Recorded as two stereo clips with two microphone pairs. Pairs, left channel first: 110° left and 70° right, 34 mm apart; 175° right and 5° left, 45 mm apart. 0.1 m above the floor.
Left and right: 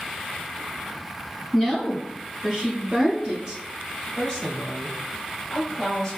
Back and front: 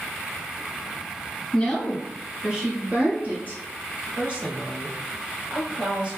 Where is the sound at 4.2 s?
45° left, 1.2 m.